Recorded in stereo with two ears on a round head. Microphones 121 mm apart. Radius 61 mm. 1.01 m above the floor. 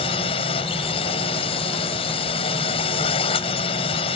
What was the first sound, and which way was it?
A drone, 40° left (ahead or behind).